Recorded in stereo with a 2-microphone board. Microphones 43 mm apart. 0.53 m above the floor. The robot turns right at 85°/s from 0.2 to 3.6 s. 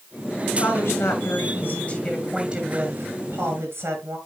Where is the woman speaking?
40° left, 8 m; by 4.2 s 65° right, 8 m.